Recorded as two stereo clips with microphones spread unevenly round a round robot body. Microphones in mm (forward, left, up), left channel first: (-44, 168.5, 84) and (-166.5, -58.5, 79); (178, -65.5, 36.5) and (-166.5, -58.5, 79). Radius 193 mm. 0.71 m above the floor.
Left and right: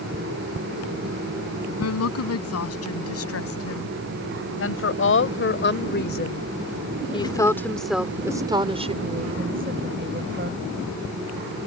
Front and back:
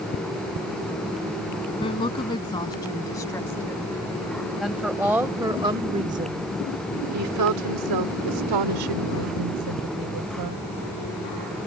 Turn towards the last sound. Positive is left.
turn(degrees=-160)